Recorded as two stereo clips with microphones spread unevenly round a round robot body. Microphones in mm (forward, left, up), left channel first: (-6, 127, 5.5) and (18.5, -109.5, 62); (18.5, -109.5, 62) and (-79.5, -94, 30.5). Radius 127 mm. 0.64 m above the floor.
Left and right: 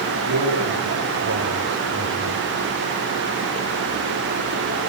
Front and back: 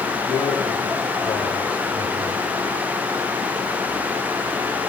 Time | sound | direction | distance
0.3 | a man speaking | 75° right | 4.5 m